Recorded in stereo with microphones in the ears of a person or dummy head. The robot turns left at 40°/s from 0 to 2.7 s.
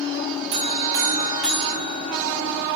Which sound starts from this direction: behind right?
A buzzer, at 0.5 s.